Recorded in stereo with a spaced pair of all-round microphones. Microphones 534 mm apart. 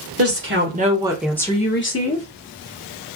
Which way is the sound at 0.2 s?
25° right (ahead or behind).